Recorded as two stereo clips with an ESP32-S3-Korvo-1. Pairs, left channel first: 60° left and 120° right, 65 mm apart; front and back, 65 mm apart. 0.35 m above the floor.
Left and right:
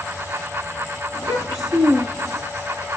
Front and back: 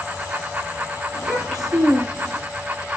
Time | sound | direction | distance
1.1 | a child speaking | 90° left | 6 m